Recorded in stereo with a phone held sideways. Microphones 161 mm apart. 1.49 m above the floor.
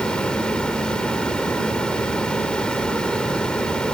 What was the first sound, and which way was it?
A fan, 5° left (ahead or behind).